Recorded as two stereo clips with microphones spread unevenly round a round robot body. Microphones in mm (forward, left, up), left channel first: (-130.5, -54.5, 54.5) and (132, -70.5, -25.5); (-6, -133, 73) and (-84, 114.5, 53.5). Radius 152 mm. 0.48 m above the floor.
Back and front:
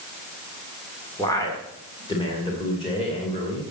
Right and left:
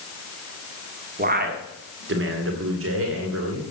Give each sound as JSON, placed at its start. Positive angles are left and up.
{"t": 1.2, "sound": "a man speaking", "azimuth_deg": 80, "distance_m": 1.6}